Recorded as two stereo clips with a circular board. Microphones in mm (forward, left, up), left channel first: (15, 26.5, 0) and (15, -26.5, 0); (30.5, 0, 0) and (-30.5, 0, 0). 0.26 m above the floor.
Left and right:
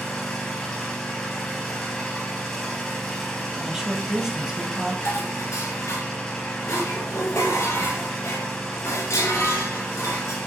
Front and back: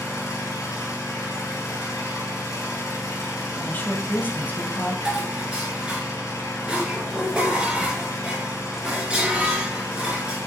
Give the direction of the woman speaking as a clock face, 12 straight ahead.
1 o'clock.